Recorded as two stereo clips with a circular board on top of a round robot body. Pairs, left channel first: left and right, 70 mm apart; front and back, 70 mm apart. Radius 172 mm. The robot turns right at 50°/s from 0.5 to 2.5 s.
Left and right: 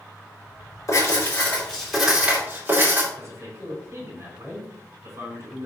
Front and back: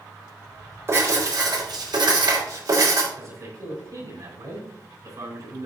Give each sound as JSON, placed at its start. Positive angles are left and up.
{"t": 0.9, "sound": "writing", "azimuth_deg": 130, "distance_m": 4.0}
{"t": 3.1, "sound": "a man speaking", "azimuth_deg": -140, "distance_m": 4.5}